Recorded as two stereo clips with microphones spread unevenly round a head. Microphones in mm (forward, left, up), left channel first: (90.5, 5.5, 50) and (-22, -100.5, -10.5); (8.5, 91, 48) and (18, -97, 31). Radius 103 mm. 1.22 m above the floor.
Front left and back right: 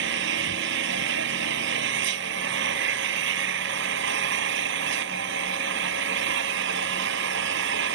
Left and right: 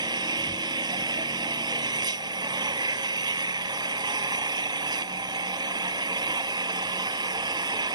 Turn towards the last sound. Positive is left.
turn(degrees=-160)